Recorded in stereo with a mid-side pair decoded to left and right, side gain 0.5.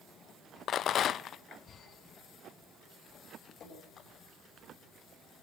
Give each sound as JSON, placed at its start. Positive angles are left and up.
{"t": 0.7, "sound": "a rattle", "azimuth_deg": 60, "distance_m": 0.5}
{"t": 3.6, "sound": "dripping", "azimuth_deg": 55, "distance_m": 8.5}